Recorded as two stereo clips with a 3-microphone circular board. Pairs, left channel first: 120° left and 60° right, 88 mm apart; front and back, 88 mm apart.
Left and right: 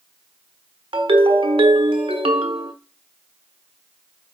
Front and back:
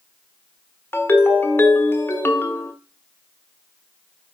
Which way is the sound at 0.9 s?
65° right.